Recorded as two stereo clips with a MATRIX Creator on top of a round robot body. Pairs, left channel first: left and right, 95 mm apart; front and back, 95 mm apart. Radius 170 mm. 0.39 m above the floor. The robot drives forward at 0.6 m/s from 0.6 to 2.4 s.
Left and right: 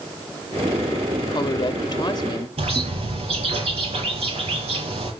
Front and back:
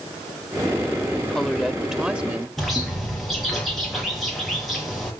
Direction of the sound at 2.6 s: 90° right.